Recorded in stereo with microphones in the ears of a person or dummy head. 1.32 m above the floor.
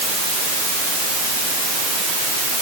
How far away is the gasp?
I don't hear a gasp.